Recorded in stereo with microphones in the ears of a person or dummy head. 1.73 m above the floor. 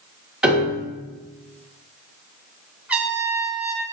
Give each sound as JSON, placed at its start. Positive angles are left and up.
{"t": 0.4, "sound": "a piano", "side_deg": -5, "distance_m": 2.5}
{"t": 2.9, "sound": "a trumpet", "side_deg": -5, "distance_m": 1.1}